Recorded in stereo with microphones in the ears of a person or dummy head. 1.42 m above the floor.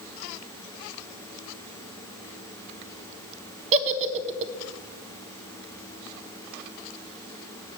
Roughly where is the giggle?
Right.